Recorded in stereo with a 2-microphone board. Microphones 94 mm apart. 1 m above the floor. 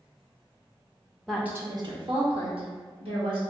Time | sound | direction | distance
1.3 | a woman speaking | centre (ahead or behind) | 0.6 m